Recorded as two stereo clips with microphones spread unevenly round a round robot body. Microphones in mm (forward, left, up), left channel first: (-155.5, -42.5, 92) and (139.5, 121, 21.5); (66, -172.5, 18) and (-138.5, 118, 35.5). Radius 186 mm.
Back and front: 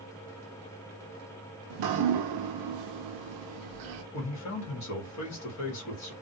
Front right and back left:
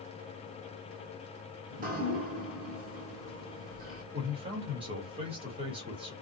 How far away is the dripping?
About 0.6 m.